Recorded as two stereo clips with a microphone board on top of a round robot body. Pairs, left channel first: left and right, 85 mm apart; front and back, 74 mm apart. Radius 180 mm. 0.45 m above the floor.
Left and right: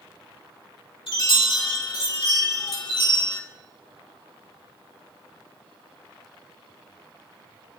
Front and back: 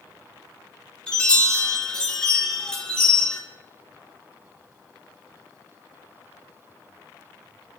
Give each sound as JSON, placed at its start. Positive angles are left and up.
{"t": 1.1, "sound": "a chime", "azimuth_deg": 75, "distance_m": 4.0}